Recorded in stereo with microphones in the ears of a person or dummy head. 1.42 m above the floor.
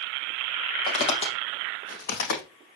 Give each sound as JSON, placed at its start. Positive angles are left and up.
{"t": 0.9, "sound": "footsteps", "side_deg": 30, "distance_m": 3.5}